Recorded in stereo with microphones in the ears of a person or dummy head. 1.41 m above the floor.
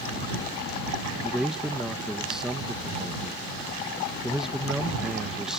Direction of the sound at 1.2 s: 5° right (ahead or behind).